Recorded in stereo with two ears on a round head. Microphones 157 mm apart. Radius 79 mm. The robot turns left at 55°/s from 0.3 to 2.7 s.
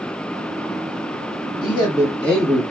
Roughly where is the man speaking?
Ahead left.